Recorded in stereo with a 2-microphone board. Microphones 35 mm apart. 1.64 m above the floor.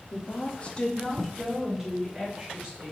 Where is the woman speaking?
45° left (ahead or behind), 0.7 m; by 2.9 s 10° right (ahead or behind), 2 m.